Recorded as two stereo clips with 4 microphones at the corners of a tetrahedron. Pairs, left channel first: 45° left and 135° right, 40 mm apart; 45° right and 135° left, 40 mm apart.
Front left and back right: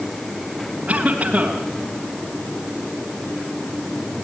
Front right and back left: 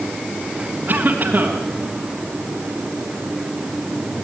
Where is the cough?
170° left, 3 m.